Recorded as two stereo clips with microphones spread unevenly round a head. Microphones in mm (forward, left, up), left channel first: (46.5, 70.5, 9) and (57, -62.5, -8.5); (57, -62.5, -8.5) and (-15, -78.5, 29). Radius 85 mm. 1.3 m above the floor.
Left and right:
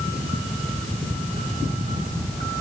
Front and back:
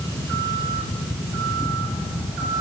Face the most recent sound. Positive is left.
No sound to turn to.